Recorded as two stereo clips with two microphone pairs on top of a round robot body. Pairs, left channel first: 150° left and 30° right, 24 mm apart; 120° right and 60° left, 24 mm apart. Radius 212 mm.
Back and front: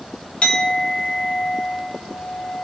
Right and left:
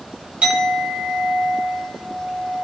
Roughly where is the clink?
Left.